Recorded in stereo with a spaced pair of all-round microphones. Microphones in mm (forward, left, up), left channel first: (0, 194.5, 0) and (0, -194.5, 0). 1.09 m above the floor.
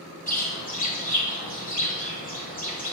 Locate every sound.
0.3 s a bird: 20° left (ahead or behind), 1.7 m